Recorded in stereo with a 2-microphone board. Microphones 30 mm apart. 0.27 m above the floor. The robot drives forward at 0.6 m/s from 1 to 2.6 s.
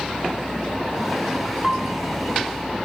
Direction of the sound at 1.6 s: 5° right (ahead or behind).